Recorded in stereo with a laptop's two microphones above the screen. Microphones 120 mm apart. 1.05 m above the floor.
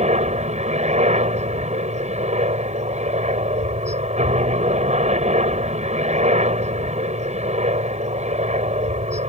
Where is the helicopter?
70° right (ahead or behind).